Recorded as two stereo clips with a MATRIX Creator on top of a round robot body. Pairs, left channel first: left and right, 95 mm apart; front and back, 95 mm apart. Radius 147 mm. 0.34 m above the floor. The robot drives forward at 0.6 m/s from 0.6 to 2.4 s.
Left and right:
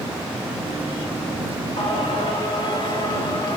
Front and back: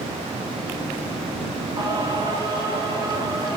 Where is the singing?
130° left, 2.5 m; by 3.6 s 135° left, 2.5 m.